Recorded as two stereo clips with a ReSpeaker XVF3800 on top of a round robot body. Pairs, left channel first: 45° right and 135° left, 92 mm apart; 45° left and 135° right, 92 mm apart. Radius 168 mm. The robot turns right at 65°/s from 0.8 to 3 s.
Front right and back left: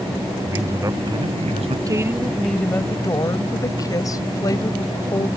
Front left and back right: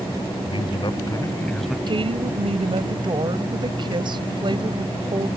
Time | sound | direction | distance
0.4 | a man speaking | 80° left | ?
1.9 | a woman speaking | 170° right | ?